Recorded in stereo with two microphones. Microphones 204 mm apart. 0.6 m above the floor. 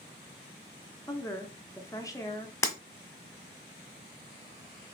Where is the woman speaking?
15° left (ahead or behind), 0.6 m.